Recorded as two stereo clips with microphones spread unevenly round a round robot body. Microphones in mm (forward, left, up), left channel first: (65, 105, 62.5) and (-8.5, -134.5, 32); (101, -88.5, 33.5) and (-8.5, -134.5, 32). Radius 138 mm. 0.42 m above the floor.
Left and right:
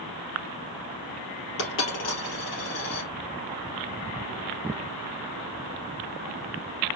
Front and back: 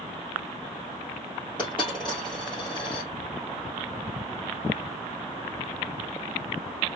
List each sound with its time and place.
1.6 s a dropped coin: 120° left, 2.5 m